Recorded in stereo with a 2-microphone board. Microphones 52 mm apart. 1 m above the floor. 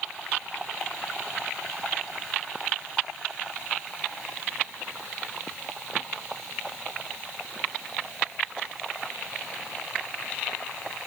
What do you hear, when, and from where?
Only background noise.